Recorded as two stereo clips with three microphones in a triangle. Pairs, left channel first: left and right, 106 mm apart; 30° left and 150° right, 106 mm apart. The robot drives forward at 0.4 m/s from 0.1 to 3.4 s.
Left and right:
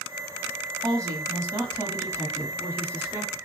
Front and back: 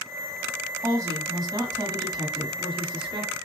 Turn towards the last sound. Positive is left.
turn(degrees=-155)